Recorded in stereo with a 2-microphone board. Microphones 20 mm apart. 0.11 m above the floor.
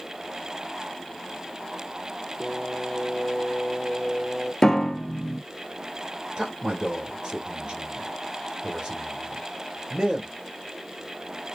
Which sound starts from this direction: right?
A man speaking, at 6.4 s.